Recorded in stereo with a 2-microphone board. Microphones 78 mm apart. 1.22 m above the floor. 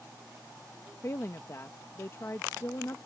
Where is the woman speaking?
40° left (ahead or behind).